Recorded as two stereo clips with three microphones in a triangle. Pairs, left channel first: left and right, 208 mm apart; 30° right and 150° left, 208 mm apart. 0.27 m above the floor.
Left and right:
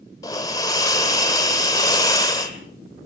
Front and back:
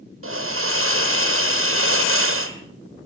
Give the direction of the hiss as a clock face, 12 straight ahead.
7 o'clock.